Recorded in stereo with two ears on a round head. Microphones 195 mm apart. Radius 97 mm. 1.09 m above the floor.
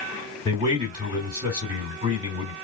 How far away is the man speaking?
About 2.5 m.